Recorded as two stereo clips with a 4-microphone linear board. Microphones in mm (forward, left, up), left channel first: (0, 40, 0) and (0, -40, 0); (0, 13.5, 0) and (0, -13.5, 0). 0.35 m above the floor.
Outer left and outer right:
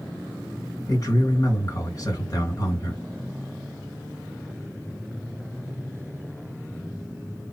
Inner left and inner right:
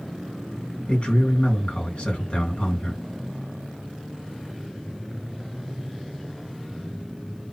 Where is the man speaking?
45° left (ahead or behind), 1.9 m.